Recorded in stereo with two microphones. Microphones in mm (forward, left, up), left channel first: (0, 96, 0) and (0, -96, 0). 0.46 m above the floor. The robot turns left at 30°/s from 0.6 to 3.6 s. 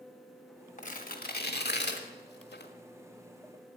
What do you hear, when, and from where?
0.8 s tearing paper: 45° left (ahead or behind), 1.3 m; by 2.7 s 70° left (ahead or behind), 1.3 m